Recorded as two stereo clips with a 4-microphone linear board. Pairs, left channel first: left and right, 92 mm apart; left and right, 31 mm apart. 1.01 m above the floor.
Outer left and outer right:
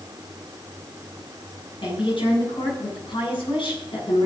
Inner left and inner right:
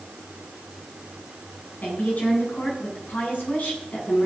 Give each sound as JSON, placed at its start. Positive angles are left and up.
{"t": 1.8, "sound": "a woman speaking", "side_deg": 65, "distance_m": 8.5}